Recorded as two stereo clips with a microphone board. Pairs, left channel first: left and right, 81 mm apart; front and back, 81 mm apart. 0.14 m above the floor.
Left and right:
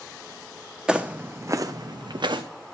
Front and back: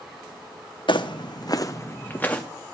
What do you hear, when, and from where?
0.9 s footsteps: 10° right, 0.7 m; by 2.4 s 75° right, 0.9 m